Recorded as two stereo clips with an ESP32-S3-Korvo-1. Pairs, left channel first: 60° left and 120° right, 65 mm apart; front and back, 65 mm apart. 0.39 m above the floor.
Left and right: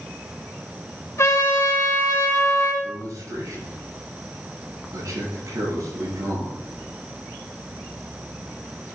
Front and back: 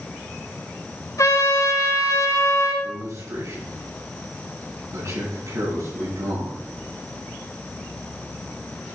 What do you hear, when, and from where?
1.2 s a trumpet: 25° left, 3.5 m
2.8 s a man speaking: 145° right, 6 m